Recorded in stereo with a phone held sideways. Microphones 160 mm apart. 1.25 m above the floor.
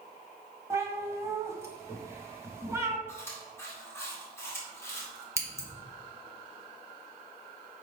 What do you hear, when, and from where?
0.7 s a cat meowing: 20° right (ahead or behind), 1.4 m
3.1 s chewing: 15° left (ahead or behind), 2.5 m
5.4 s scissors: 20° right (ahead or behind), 1.5 m